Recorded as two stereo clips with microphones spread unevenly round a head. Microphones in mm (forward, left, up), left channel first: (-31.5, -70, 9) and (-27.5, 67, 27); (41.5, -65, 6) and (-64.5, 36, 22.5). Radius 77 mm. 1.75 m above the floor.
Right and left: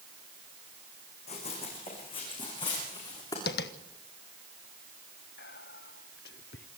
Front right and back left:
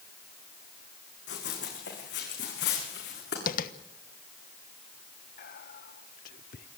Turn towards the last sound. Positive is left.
turn(degrees=-65)